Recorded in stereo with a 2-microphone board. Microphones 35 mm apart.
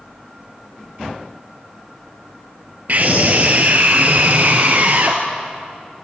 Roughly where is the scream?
Right.